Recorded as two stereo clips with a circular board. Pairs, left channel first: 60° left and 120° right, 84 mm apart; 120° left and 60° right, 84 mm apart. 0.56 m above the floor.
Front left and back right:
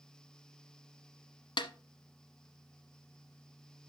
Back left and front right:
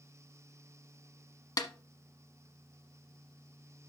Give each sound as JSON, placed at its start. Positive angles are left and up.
{"t": 1.6, "sound": "a snare drum", "azimuth_deg": 80, "distance_m": 1.0}